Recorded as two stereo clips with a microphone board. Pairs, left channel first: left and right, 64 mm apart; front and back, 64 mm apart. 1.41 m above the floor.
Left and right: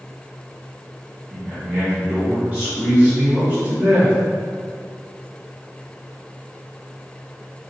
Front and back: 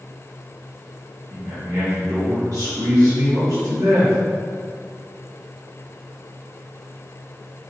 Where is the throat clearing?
I don't hear throat clearing.